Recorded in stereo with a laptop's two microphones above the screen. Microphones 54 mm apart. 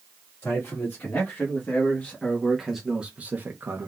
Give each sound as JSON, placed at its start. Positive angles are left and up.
{"t": 0.4, "sound": "a man speaking", "side_deg": 45, "distance_m": 2.0}